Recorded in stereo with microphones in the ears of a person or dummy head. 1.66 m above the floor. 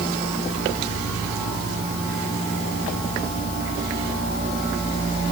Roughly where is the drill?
No drill in this recording.